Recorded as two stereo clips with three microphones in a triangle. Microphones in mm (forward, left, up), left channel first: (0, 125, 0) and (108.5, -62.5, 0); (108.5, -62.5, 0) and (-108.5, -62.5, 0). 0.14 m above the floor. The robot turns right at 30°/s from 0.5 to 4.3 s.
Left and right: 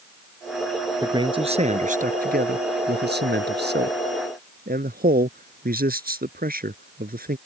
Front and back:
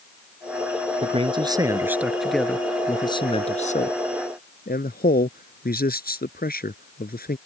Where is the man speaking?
125° right; by 7.4 s 30° right.